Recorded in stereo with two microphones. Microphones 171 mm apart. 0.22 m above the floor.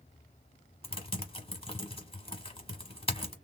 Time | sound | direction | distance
0.8 | typing on a keyboard | 35° left (ahead or behind) | 1.0 m